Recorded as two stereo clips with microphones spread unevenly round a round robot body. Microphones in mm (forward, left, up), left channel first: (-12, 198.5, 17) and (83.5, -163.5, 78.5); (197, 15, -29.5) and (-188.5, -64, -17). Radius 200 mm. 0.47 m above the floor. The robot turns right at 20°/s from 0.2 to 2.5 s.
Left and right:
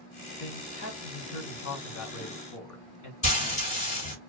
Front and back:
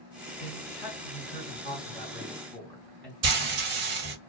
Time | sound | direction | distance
0.4 | a man speaking | 55° left | 1.6 m
3.2 | frying | 170° left | 1.3 m